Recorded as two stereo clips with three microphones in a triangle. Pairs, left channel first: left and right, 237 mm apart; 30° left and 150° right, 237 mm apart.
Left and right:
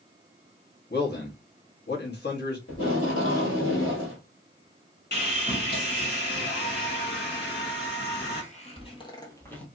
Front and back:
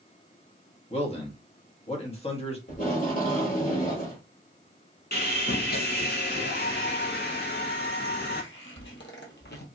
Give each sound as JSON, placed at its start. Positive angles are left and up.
{"t": 0.9, "sound": "a man speaking", "azimuth_deg": 80, "distance_m": 1.2}
{"t": 2.7, "sound": "tape being pulled", "azimuth_deg": 75, "distance_m": 1.7}
{"t": 5.1, "sound": "sawing", "azimuth_deg": 60, "distance_m": 1.1}
{"t": 7.4, "sound": "footsteps", "azimuth_deg": 50, "distance_m": 1.8}